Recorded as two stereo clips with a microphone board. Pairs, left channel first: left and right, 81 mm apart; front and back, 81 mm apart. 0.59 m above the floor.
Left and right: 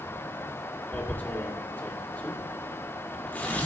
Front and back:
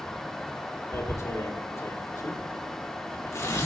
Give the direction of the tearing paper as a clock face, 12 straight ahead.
11 o'clock.